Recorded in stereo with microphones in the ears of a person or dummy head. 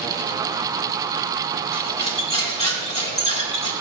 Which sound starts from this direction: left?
Cutlery clinking, at 1.7 s.